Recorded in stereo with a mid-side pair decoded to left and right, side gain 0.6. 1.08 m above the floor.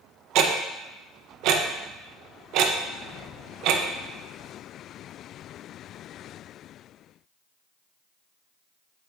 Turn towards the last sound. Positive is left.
turn(degrees=-70)